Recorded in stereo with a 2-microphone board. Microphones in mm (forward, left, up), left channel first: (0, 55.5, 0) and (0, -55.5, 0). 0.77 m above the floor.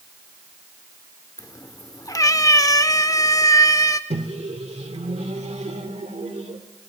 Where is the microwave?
65° right (ahead or behind), 1.6 m.